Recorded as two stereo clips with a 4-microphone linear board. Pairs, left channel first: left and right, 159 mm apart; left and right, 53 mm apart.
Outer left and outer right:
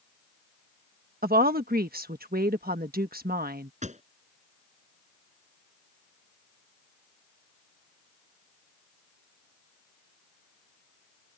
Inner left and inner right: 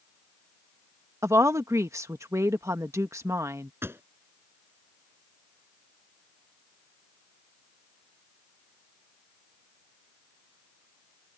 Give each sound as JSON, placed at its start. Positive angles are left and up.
{"t": 1.2, "sound": "a woman speaking", "side_deg": -70}
{"t": 3.8, "sound": "a pop", "side_deg": -50}